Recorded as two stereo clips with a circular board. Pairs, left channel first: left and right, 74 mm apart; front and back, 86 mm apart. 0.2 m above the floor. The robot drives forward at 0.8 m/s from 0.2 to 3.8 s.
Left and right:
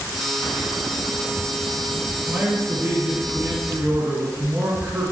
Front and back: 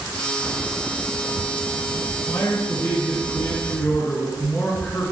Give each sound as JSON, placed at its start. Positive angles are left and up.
{"t": 2.3, "sound": "a man speaking", "azimuth_deg": -25, "distance_m": 3.0}